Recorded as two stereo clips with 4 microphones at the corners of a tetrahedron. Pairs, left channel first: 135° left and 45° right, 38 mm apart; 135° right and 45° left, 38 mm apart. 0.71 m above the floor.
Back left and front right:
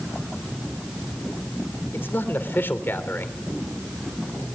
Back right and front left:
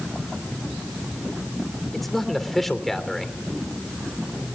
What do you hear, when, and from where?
1.9 s a man speaking: 140° left, 3 m